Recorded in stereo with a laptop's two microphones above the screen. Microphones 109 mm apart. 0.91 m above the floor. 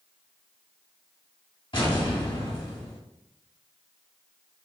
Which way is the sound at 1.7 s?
50° left (ahead or behind).